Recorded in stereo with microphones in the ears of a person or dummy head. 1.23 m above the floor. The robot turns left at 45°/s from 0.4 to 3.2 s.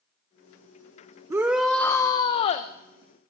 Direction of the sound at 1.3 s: 165° right.